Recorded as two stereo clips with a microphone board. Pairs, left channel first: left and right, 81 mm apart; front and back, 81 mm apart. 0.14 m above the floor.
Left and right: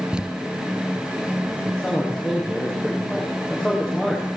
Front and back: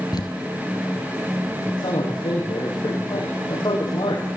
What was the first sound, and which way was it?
Crumpling, 15° right.